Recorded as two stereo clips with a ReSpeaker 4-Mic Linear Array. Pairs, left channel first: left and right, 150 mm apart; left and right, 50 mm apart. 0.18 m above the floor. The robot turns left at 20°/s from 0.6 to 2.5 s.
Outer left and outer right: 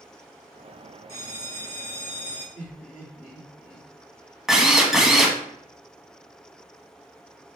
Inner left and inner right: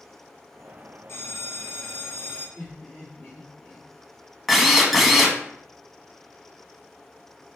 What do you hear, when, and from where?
1.1 s a bell: 50° left (ahead or behind), 2.5 m; by 2.5 s 25° left (ahead or behind), 2.5 m
2.5 s laughter: 15° left (ahead or behind), 2 m
4.5 s a drill: 5° right (ahead or behind), 0.7 m